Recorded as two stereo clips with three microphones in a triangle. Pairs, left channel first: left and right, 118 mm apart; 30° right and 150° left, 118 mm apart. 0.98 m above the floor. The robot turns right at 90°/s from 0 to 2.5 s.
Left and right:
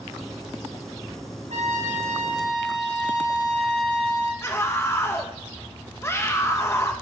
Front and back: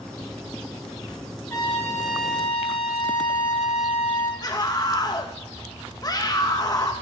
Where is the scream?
25° left, 0.8 m.